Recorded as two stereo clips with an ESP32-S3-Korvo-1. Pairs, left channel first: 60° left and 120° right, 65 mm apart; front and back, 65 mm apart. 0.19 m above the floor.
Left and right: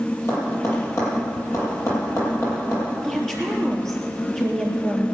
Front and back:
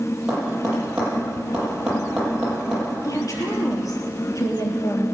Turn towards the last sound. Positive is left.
turn(degrees=-25)